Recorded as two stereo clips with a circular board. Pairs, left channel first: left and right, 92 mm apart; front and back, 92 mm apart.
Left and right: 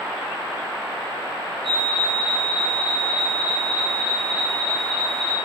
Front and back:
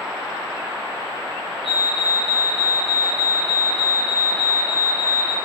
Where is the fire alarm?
5° left, 5.5 m.